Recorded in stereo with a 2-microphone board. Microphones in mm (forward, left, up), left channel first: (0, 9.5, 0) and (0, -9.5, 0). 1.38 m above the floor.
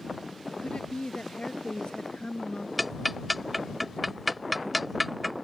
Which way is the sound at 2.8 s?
5° right (ahead or behind).